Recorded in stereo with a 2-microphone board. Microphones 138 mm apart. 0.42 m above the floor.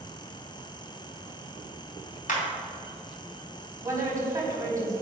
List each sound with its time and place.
2.3 s a clap: 70° left (ahead or behind), 2.5 m
3.8 s a woman speaking: 20° right (ahead or behind), 3.5 m